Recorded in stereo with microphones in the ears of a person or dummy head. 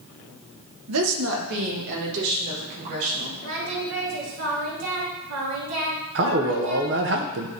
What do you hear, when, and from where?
0.9 s a woman speaking: 75° right (ahead or behind), 1.2 m; by 3.3 s 45° right (ahead or behind), 4 m
3.4 s singing: 80° right, 2.5 m
6.2 s a man speaking: 50° right (ahead or behind), 0.9 m